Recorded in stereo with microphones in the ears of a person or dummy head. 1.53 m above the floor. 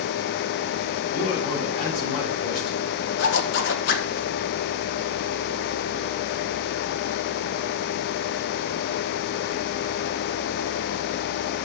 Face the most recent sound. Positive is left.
turn(degrees=70)  # may be behind; listen again after turning